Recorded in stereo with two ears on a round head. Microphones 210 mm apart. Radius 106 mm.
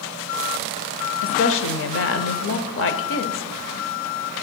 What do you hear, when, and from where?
1.2 s a woman speaking: 60° left (ahead or behind), 0.7 m